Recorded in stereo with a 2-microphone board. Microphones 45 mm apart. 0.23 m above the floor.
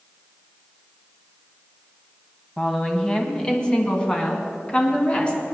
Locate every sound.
2.6 s a woman speaking: 15° left (ahead or behind), 1.6 m; by 5.4 s 25° left (ahead or behind), 3 m